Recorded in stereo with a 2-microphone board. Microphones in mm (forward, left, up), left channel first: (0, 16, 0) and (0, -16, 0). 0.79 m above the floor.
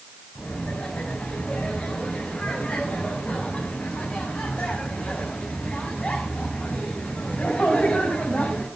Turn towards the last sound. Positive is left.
turn(degrees=40)  # may be behind; listen again after turning